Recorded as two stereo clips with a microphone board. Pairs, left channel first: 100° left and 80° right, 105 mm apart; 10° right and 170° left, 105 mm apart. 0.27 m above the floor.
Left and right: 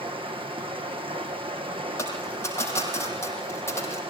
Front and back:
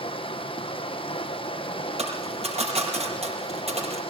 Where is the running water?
45° right, 2 m.